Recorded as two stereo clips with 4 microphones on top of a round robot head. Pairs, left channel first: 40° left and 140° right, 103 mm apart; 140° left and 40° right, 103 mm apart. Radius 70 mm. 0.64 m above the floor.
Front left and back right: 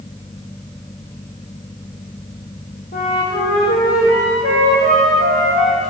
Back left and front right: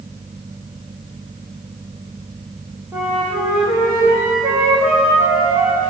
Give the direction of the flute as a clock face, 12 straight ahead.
11 o'clock.